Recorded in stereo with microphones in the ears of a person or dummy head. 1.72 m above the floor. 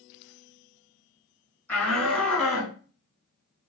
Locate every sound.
1.7 s a shout: 10° left (ahead or behind), 2.5 m; by 2.8 s 10° right (ahead or behind), 1.5 m